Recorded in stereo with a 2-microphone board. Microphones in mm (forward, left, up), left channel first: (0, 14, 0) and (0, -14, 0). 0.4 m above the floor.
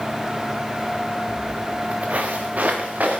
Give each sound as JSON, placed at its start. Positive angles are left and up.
{"t": 1.3, "sound": "footsteps", "side_deg": -45, "distance_m": 1.8}